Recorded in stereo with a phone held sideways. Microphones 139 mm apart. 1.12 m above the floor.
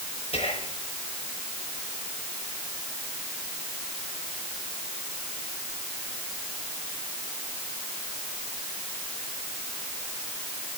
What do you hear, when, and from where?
0.3 s whispering: 45° left (ahead or behind), 4.5 m